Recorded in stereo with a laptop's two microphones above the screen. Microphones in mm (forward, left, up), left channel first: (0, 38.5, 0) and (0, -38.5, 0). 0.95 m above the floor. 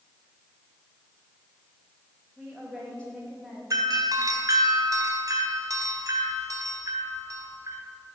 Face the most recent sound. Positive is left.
turn(degrees=-45)  # may be behind; listen again after turning